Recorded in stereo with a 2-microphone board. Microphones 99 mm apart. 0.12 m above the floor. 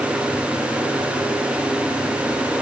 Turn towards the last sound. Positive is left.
No sound to turn to.